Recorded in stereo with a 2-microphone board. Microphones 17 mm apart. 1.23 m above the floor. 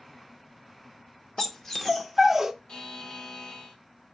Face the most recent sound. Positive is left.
turn(degrees=55)  # may be behind; listen again after turning